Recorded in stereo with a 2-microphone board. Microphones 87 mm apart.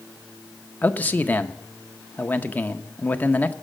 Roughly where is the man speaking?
Left.